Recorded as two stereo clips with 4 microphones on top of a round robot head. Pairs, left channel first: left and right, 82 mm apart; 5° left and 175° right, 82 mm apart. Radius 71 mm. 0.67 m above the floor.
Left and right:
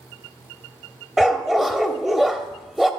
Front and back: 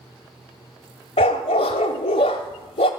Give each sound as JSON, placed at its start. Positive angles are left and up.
{"t": 1.2, "sound": "a dog barking", "azimuth_deg": -5, "distance_m": 0.7}